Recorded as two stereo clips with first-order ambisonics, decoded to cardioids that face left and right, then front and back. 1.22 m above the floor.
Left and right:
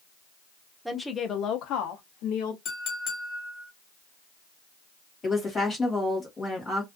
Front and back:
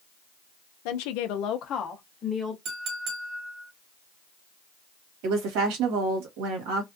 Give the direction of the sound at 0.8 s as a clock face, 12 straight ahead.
12 o'clock.